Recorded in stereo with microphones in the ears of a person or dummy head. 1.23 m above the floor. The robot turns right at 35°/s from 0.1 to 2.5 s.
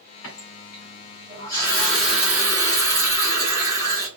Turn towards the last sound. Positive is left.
turn(degrees=-165)